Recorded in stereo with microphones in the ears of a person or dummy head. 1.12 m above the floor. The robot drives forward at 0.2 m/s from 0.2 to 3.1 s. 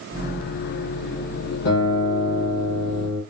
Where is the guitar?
60° left (ahead or behind), 1.5 m; by 3.2 s 50° left (ahead or behind), 1.6 m.